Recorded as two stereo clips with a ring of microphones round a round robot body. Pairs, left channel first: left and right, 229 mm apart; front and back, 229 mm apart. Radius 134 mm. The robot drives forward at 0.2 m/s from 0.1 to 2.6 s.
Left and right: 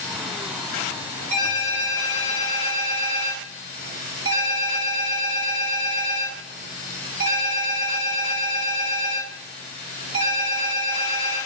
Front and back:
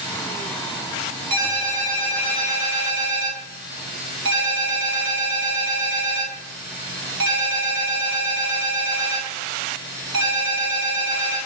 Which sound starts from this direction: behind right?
A ringtone, at 1.3 s.